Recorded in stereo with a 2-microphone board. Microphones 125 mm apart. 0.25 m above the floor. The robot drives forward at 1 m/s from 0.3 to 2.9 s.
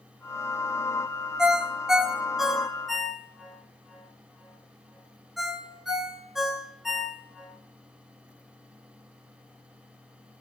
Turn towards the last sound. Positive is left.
turn(degrees=0)  # may be behind; listen again after turning